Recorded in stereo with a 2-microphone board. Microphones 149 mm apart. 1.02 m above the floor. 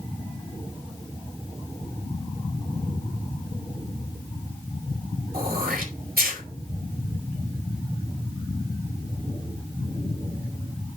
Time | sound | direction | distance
5.3 | throat clearing | 85° right | 3 m